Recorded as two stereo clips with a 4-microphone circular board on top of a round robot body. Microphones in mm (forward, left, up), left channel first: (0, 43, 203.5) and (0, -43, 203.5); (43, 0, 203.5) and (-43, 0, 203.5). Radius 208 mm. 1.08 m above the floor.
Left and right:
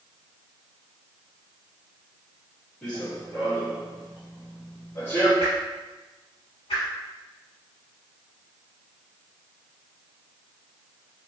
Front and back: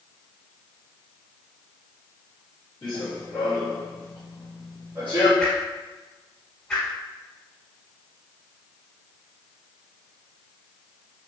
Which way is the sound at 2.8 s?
25° left.